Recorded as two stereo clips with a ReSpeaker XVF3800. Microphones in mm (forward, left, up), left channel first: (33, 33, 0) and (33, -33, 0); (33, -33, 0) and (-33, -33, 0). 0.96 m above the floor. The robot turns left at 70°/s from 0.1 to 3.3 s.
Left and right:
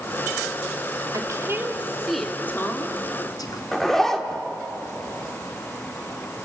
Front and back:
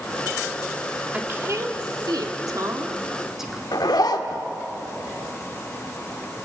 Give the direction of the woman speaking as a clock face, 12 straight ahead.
4 o'clock.